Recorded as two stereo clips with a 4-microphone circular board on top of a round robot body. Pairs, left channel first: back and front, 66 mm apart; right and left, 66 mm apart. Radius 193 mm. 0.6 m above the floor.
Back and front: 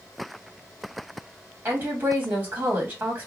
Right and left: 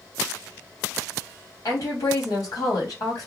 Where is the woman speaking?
60° right, 1.5 m.